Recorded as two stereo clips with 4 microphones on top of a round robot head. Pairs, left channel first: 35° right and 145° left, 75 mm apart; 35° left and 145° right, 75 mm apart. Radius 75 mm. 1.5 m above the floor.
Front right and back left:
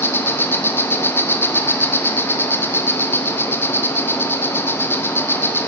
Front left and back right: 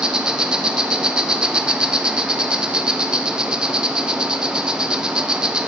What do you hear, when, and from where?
0.0 s an insect: 75° right, 0.7 m